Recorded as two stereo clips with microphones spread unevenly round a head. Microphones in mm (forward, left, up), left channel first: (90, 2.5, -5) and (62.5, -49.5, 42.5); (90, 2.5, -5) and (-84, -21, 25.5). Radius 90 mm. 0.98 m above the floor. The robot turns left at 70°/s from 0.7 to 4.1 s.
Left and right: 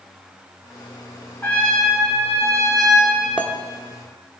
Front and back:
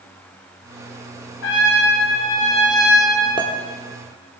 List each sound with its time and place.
1.4 s a trumpet: 15° left, 2.5 m; by 3.3 s 115° right, 2.5 m
3.4 s a clink: 55° right, 1.4 m; by 3.5 s 65° right, 1.4 m